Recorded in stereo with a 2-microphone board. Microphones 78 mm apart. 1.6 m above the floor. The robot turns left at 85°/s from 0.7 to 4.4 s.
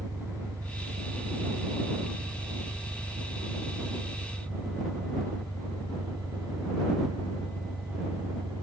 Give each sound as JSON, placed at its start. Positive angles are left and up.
{"t": 0.0, "sound": "an engine running", "azimuth_deg": -40}